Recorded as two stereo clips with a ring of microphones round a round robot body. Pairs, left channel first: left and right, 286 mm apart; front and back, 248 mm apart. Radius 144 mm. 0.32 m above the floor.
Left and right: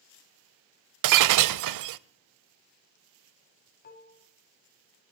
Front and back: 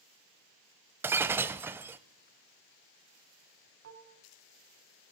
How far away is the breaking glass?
About 0.6 m.